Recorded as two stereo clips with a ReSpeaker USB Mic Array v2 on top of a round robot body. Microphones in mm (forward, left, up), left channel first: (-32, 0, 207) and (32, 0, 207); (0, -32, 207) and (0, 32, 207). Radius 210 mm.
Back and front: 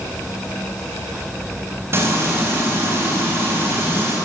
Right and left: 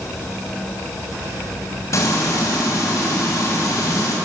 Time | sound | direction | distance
1.9 | frying | 50° right | 5.5 m